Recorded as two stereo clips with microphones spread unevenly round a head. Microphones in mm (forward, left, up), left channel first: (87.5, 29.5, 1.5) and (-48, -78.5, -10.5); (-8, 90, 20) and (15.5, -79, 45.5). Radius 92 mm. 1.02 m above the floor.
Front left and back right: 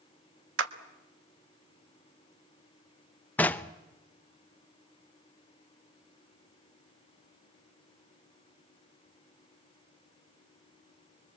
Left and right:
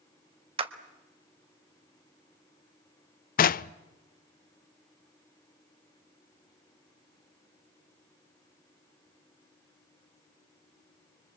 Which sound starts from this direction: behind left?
Knocking, at 3.4 s.